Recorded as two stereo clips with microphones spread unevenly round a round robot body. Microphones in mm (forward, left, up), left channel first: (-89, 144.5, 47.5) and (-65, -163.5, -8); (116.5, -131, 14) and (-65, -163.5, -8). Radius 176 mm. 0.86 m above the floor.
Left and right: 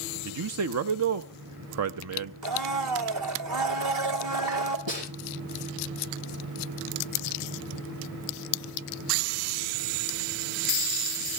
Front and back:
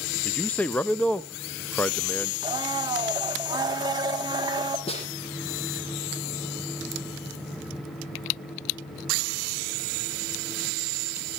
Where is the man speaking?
75° right, 0.6 m.